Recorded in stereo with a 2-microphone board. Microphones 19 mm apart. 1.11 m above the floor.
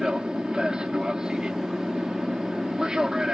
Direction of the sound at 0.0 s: 55° right (ahead or behind).